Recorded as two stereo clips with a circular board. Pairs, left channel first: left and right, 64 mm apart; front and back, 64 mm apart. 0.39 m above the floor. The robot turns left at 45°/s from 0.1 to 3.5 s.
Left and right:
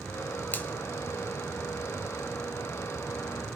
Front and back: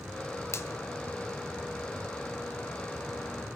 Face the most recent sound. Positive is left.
turn(degrees=-95)